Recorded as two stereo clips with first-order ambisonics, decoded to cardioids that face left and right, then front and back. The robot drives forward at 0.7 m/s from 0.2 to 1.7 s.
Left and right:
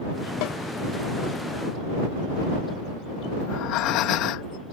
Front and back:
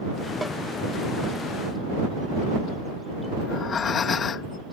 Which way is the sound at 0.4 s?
95° left.